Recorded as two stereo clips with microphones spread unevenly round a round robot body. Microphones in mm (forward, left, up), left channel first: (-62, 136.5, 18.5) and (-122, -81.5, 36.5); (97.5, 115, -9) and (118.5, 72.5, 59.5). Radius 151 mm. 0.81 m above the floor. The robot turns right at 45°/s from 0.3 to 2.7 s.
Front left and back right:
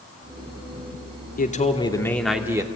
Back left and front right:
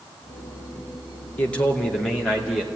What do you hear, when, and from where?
1.4 s a man speaking: 120° left, 2.5 m; by 2.7 s straight behind, 2.5 m